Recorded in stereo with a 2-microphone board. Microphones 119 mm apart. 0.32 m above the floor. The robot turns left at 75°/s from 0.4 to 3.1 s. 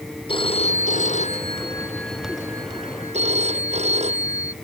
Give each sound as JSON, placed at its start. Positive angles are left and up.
{"t": 0.3, "sound": "a phone ringing", "azimuth_deg": 135}